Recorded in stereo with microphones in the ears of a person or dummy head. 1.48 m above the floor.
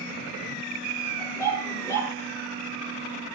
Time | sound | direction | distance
1.2 | a dog barking | 10° left (ahead or behind) | 6 m